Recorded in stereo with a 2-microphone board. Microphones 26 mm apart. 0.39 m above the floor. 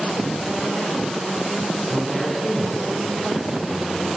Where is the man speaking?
15° left (ahead or behind), 4.5 m; by 4.1 s 15° right (ahead or behind), 5.5 m.